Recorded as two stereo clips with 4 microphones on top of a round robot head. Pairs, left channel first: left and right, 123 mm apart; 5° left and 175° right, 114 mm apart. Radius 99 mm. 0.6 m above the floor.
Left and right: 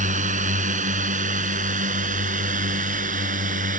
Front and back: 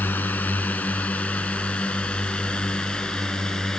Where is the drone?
75° right; by 3.8 s 80° right.